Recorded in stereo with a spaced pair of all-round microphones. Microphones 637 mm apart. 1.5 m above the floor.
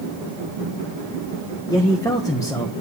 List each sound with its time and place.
1.7 s a man speaking: 5° left (ahead or behind), 1.1 m